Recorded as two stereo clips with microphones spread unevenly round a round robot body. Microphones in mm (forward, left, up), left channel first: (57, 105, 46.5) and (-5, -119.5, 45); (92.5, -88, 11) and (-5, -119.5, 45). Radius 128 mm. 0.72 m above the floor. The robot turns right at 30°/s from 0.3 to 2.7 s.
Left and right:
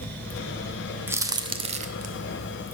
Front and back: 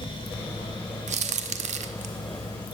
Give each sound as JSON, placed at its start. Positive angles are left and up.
{"t": 1.1, "sound": "a crack", "azimuth_deg": 175, "distance_m": 0.9}